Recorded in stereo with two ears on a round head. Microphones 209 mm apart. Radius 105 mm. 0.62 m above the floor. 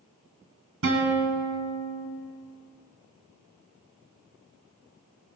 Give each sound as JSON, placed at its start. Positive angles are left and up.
{"t": 0.8, "sound": "a guitar", "side_deg": -60, "distance_m": 1.9}